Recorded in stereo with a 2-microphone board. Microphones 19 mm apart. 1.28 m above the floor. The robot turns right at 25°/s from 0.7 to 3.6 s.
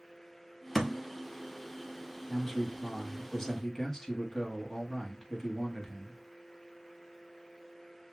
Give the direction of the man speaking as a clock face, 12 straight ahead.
12 o'clock.